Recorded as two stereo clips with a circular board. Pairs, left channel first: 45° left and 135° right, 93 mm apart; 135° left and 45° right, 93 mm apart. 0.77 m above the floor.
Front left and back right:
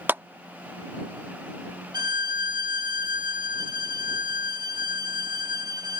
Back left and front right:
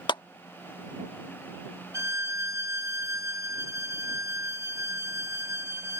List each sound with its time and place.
0.1 s a clap: 160° left
1.9 s a violin: 100° right